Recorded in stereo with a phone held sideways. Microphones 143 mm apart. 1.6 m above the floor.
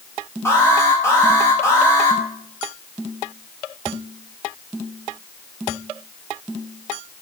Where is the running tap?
No running tap in this recording.